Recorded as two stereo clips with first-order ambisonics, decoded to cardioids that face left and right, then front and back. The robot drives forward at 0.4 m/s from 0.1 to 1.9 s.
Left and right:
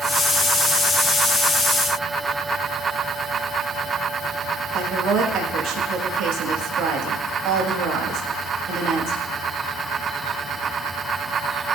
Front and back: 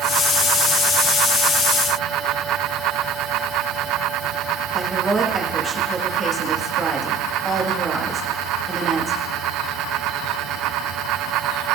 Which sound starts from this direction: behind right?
A woman speaking, at 4.7 s.